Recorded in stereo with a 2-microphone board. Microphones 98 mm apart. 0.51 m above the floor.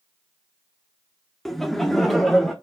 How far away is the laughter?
About 0.6 m.